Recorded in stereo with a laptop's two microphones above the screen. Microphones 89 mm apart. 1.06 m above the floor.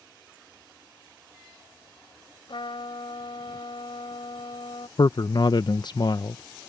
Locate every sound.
2.5 s a trumpet: 80° left
5.0 s a man speaking: 55° left (ahead or behind)